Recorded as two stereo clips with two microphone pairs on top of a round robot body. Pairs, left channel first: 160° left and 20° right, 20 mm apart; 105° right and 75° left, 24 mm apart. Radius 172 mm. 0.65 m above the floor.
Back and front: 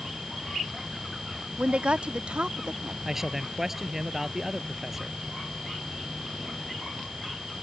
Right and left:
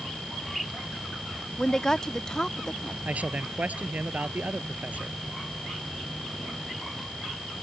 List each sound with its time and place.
1.6 s a woman speaking: 40° right
3.0 s a man speaking: 55° left